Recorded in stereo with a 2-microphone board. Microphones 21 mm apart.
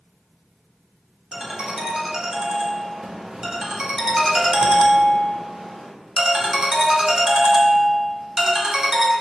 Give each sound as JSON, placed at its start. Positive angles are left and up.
{"t": 1.3, "sound": "a ringtone", "side_deg": -40, "distance_m": 0.7}